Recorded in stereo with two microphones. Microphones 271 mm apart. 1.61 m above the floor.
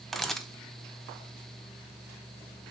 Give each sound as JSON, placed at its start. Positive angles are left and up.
{"t": 0.1, "sound": "a camera shutter", "side_deg": 0, "distance_m": 0.9}